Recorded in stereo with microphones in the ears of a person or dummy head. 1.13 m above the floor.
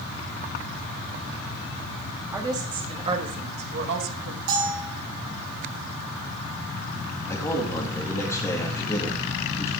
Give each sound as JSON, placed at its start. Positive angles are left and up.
{"t": 2.3, "sound": "a woman speaking", "side_deg": -20, "distance_m": 2.0}
{"t": 4.5, "sound": "a bell", "side_deg": -70, "distance_m": 5.0}
{"t": 7.3, "sound": "a man speaking", "side_deg": 10, "distance_m": 2.0}